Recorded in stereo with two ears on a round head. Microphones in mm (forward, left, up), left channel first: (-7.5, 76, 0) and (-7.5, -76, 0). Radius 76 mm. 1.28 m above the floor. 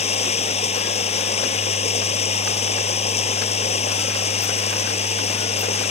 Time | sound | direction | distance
0.0 | running water | 40° left (ahead or behind) | ?